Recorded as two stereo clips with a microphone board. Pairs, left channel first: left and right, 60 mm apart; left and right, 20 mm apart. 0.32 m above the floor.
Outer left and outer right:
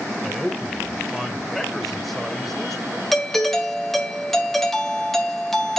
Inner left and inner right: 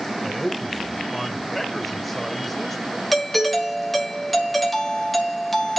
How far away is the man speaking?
About 0.9 m.